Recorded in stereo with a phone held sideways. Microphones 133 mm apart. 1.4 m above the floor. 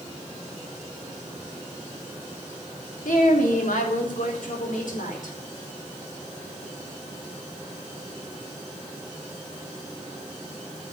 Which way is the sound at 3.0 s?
85° left.